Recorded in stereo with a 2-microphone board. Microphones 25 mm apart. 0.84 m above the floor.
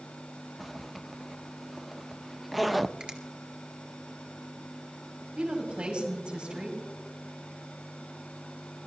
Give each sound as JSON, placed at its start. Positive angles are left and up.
{"t": 0.6, "sound": "a zipper", "side_deg": -5, "distance_m": 0.5}
{"t": 3.0, "sound": "a finger snap", "side_deg": -40, "distance_m": 1.8}
{"t": 5.3, "sound": "a woman speaking", "side_deg": -55, "distance_m": 6.0}